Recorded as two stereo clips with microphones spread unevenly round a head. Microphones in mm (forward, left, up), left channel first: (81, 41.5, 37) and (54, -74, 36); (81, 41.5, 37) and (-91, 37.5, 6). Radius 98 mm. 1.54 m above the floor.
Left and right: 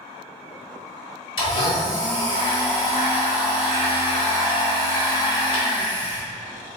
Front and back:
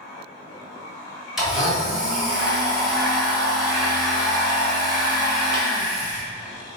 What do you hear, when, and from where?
1.4 s a blender: 80° left, 1.6 m